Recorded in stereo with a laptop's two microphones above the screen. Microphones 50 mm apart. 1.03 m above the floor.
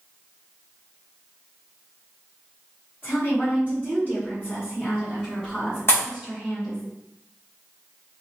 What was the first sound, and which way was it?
A woman speaking, 50° left (ahead or behind).